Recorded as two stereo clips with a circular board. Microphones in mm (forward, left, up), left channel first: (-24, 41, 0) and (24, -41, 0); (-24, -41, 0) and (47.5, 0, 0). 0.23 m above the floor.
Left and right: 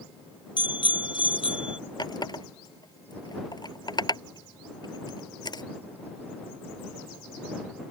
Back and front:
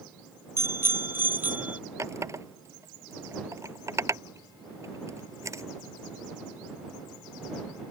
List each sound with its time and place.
0.6 s a bicycle bell: 85° left; by 1.8 s 100° left
2.0 s a running tap: 80° left